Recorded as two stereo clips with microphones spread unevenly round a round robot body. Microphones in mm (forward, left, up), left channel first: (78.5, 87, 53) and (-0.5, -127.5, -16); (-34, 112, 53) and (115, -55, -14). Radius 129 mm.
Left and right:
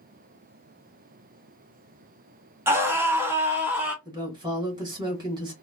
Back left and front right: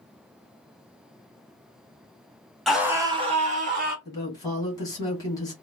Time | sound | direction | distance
2.7 | a scream | 105° right | 0.9 m
4.0 | a woman speaking | 140° right | 1.5 m